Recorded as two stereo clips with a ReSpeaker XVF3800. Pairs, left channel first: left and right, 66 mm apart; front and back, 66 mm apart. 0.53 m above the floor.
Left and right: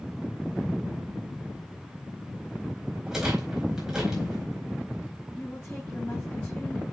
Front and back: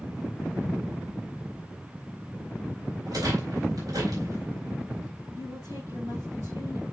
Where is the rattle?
170° right, 4 m.